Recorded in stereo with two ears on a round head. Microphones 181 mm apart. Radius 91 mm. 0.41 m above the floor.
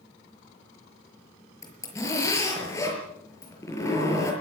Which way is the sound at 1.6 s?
15° left (ahead or behind).